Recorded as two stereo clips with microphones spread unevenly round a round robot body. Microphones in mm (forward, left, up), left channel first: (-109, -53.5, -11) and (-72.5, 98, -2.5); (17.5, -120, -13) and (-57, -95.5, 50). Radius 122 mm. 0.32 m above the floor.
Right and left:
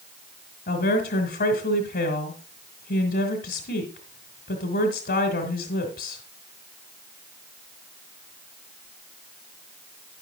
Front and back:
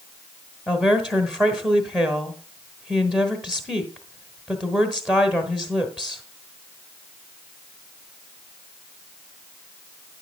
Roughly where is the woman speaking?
Right.